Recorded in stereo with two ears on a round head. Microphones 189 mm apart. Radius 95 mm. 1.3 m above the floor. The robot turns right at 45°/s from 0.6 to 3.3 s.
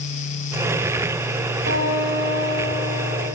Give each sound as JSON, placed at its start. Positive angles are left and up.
{"t": 1.7, "sound": "a guitar", "azimuth_deg": -90, "distance_m": 2.5}